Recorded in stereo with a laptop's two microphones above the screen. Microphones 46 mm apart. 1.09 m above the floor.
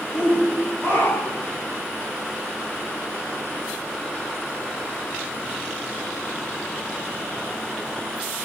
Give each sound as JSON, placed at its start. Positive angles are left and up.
{"t": 0.1, "sound": "a shout", "side_deg": 70, "distance_m": 3.0}